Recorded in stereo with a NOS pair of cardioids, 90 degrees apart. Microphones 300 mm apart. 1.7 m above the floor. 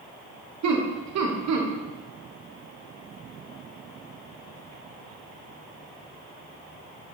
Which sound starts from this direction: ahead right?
Laughter, at 0.6 s.